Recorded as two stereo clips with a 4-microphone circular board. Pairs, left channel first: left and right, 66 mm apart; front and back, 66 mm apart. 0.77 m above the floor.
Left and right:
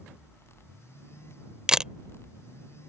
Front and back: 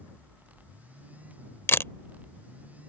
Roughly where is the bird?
I don't hear a bird.